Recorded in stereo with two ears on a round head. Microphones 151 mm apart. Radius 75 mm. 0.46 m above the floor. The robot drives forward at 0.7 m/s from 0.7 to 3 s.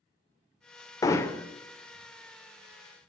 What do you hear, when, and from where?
1.0 s hammering: 20° left (ahead or behind), 0.6 m; by 1.5 s 15° left (ahead or behind), 0.9 m